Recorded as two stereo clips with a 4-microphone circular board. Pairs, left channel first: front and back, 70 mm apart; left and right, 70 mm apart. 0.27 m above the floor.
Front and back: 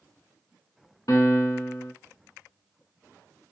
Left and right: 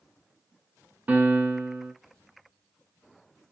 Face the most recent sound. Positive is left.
turn(degrees=-25)